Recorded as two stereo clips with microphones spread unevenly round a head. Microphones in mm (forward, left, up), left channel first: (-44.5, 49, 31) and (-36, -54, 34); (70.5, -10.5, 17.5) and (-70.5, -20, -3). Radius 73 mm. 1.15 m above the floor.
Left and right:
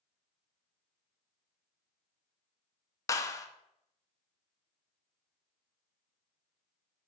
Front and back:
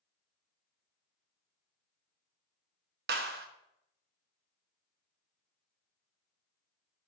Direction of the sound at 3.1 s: 155° left.